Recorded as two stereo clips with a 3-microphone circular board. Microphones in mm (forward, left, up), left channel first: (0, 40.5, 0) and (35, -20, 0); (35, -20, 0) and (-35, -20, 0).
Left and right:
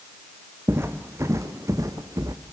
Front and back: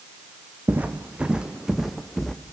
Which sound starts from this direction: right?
Footsteps, at 0.7 s.